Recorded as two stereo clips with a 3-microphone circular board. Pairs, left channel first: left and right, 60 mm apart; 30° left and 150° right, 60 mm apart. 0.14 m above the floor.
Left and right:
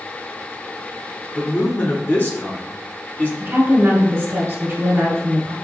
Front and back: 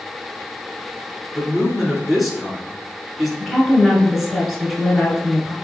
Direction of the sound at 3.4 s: 65° right.